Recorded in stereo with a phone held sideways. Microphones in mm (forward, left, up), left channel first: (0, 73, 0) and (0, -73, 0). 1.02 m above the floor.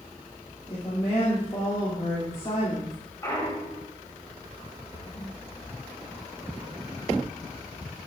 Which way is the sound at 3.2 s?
20° left (ahead or behind).